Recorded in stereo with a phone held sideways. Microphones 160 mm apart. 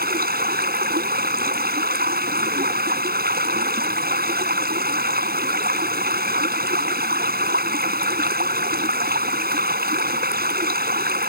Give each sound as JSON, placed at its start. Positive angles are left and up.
{"t": 0.0, "sound": "running water", "side_deg": -75}